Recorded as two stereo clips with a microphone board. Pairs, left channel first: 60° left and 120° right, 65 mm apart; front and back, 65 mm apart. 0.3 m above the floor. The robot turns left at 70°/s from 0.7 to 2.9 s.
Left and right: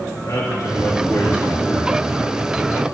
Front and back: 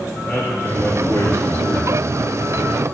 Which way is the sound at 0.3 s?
45° left.